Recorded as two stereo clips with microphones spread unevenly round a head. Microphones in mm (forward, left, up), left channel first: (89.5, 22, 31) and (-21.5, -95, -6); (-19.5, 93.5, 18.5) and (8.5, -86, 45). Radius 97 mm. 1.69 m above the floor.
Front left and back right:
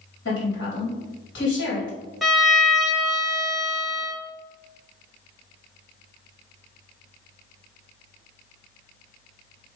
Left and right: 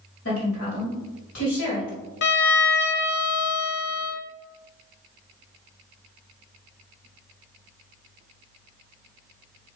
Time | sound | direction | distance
0.2 | a woman speaking | 80° left | 3.5 m
2.2 | a violin | 130° left | 1.1 m